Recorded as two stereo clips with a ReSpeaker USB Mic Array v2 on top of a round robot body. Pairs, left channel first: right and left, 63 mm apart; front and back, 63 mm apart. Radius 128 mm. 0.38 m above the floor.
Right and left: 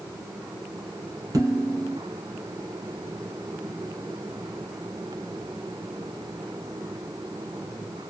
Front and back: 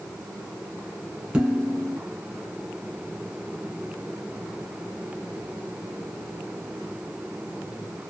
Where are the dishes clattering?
110° left, 1.4 m.